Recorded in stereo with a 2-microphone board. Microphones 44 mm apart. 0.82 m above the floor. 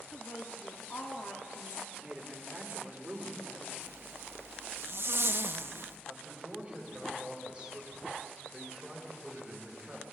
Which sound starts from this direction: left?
A woman speaking, at 0.1 s.